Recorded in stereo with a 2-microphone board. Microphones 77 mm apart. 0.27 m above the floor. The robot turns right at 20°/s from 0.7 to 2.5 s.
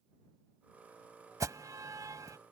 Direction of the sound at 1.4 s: 45° right (ahead or behind).